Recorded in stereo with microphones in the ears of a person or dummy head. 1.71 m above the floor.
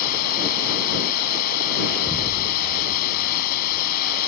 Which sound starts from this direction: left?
Running water, at 0.0 s.